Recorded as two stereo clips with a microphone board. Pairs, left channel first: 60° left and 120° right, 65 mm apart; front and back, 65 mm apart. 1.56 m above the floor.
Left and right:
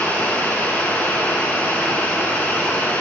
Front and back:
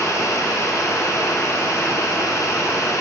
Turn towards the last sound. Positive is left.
turn(degrees=0)